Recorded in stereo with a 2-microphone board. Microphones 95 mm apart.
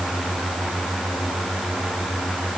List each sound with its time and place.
Only background noise.